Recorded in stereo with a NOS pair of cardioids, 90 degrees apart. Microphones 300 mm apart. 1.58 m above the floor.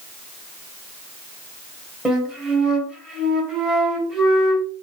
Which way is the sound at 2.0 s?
5° right.